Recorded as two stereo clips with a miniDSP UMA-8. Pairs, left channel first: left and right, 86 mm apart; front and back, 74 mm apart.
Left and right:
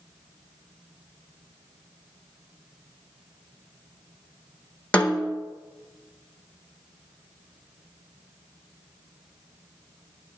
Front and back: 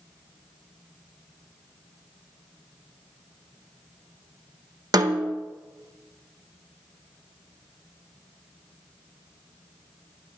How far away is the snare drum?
About 0.8 m.